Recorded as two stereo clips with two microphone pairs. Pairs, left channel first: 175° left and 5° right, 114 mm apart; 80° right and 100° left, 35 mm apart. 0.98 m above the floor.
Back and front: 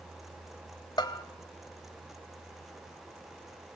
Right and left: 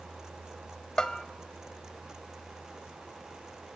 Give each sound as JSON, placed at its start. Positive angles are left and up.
{"t": 1.0, "sound": "a bell", "azimuth_deg": -140, "distance_m": 1.4}